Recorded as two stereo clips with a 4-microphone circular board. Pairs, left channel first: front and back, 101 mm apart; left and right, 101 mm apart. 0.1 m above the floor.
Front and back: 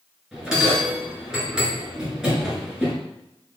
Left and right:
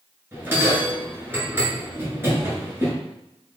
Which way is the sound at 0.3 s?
105° right.